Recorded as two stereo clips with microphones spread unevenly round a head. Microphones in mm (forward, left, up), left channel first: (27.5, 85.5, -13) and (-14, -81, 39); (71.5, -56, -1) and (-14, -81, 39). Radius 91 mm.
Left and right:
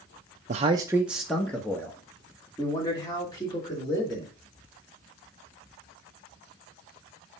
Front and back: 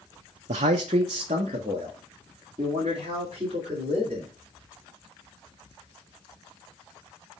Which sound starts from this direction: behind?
A man speaking, at 0.5 s.